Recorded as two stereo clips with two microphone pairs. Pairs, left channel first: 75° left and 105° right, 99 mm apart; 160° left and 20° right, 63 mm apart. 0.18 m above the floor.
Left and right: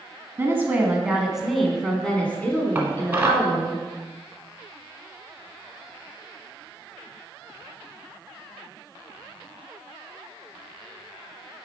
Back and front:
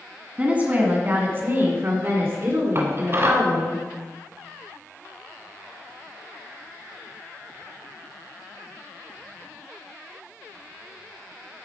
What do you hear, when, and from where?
0.4 s a woman speaking: 70° right, 1.3 m; by 3.8 s 20° left, 2 m
2.8 s dishes clattering: 40° right, 1.2 m